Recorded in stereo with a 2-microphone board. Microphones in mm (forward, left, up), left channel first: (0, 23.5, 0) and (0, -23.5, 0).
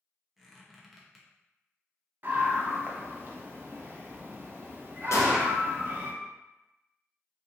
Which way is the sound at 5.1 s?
80° left.